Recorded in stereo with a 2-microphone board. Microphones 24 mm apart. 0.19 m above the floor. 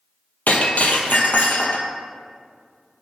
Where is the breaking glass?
80° left, 1.1 m.